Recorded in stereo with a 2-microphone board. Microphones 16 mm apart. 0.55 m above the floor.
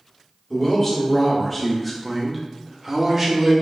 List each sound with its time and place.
0.5 s a man speaking: 15° left (ahead or behind), 1.2 m; by 3.5 s 25° right (ahead or behind), 1.0 m